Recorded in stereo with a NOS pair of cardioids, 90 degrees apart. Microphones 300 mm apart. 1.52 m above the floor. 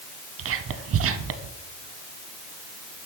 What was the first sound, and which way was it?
Whispering, 50° right.